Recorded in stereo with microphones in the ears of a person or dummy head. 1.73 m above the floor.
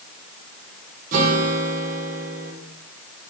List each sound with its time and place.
1.1 s a guitar: 45° right (ahead or behind), 2.5 m